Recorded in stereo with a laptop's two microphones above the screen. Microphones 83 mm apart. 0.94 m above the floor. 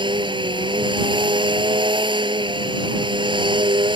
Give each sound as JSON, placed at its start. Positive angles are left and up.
{"t": 0.0, "sound": "a machine running", "side_deg": -85}